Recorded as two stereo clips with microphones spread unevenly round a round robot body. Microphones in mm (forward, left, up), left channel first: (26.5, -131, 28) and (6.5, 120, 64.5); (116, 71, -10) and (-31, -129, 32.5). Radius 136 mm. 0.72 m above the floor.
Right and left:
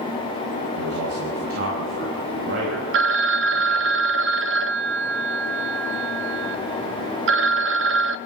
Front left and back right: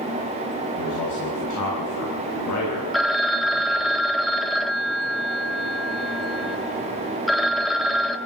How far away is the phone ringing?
About 0.6 m.